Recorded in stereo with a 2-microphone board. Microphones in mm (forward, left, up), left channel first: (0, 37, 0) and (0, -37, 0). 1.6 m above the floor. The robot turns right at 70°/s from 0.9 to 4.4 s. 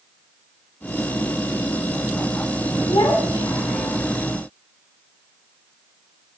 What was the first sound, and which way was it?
A child speaking, 80° left.